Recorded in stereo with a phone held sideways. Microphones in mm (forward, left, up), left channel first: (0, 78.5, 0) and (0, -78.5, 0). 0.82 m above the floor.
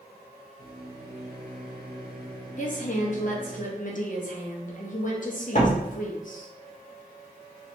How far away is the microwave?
About 0.9 m.